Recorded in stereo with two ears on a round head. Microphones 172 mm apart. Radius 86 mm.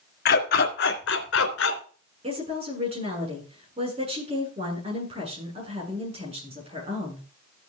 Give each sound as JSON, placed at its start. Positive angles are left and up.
{"t": 0.2, "sound": "a dog barking", "side_deg": 50, "distance_m": 2.5}
{"t": 2.2, "sound": "a woman speaking", "side_deg": -30, "distance_m": 7.5}